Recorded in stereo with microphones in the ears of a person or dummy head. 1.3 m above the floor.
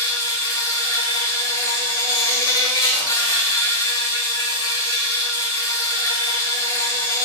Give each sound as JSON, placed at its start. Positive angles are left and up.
{"t": 0.0, "sound": "an insect", "side_deg": 20, "distance_m": 1.7}